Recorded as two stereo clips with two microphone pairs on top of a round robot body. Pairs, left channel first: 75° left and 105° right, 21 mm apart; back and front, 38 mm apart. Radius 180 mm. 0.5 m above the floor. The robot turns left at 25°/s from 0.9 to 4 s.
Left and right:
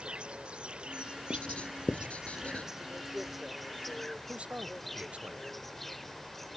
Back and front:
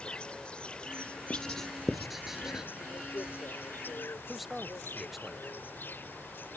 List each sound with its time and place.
0.0 s an insect: 125° right; by 6.6 s 160° left
1.3 s writing: 105° left; by 2.7 s 70° left
4.3 s a man speaking: 90° right